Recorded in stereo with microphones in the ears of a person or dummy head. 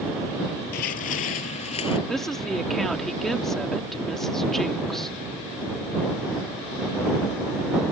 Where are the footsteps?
50° left (ahead or behind); by 2.0 s 35° left (ahead or behind).